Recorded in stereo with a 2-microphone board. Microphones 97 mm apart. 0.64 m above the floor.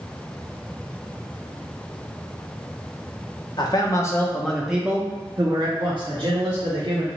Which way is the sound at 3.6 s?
45° left (ahead or behind).